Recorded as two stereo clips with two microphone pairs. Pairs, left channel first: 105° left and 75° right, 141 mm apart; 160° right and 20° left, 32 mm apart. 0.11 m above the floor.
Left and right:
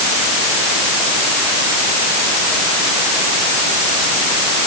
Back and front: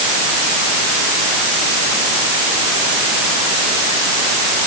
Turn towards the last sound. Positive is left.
No sound to turn to.